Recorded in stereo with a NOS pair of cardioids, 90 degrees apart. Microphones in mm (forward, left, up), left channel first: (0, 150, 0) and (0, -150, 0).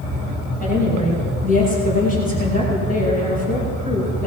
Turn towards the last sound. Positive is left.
turn(degrees=30)